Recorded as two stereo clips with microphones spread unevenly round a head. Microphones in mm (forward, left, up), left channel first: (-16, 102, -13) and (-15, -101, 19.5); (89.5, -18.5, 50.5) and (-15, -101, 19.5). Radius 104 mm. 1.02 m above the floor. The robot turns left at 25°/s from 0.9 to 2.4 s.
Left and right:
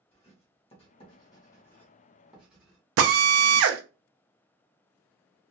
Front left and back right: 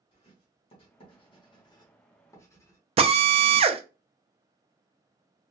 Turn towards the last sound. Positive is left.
turn(degrees=-110)